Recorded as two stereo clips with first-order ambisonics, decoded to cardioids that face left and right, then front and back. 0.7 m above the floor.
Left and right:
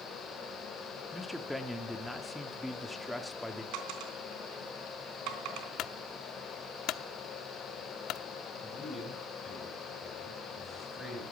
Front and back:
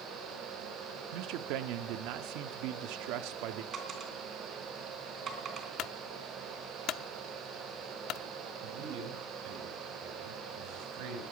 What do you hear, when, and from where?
1.1 s a man speaking: straight behind, 1.1 m
3.7 s a dropped coin: 120° right, 3 m
5.8 s a clunk: 45° left, 0.7 m
8.6 s a man speaking: straight behind, 5.5 m